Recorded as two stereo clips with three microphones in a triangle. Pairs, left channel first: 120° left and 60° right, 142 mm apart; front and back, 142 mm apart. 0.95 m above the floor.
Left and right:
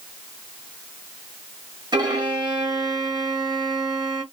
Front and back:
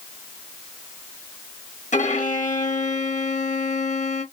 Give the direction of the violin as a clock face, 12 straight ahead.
12 o'clock.